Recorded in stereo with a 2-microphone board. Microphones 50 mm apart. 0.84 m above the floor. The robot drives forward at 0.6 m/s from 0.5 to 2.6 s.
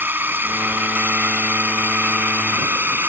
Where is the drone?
40° right (ahead or behind).